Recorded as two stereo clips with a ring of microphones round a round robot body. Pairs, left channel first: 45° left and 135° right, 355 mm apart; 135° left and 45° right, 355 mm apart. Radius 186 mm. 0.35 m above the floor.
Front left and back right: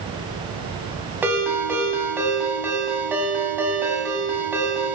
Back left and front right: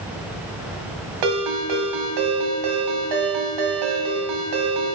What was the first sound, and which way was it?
A ringtone, 50° right.